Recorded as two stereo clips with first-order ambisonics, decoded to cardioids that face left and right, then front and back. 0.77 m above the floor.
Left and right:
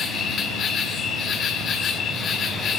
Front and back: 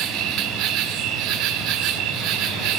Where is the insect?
150° left, 1.9 m.